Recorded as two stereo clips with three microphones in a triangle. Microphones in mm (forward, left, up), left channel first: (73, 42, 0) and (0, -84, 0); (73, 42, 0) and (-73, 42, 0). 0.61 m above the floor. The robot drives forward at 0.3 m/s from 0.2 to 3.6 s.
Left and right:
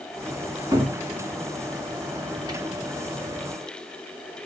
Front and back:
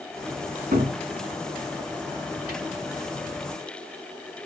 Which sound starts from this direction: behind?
A cupboard door, at 0.7 s.